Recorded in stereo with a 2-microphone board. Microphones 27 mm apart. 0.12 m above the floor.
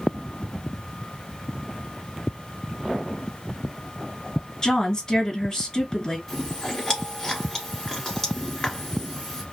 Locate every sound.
4.6 s a woman speaking: 20° left (ahead or behind), 2 m
6.3 s chewing: 15° left (ahead or behind), 1.4 m